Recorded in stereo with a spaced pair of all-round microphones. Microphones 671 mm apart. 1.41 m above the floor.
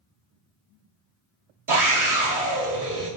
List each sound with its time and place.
1.7 s a scream: 30° right (ahead or behind), 0.5 m